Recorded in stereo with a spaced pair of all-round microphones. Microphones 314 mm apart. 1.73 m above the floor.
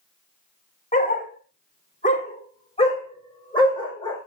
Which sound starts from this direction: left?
A dog barking, at 0.9 s.